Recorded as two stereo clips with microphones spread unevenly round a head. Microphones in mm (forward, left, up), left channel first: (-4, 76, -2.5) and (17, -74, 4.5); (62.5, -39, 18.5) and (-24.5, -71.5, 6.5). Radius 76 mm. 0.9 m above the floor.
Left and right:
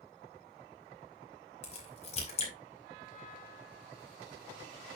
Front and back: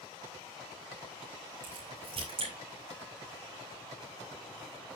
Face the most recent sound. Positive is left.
turn(degrees=150)